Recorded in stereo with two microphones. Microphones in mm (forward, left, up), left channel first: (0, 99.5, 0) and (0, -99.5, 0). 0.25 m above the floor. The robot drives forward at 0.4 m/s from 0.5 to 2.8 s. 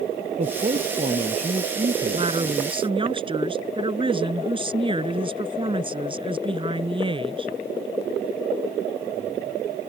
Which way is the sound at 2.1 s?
30° right (ahead or behind).